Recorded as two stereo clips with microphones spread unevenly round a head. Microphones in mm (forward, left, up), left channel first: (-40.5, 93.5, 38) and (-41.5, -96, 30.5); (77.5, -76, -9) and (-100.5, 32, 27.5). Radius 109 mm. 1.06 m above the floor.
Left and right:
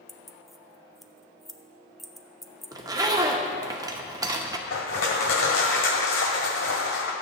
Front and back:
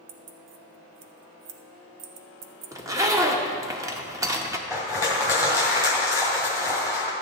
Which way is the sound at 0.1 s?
Straight behind.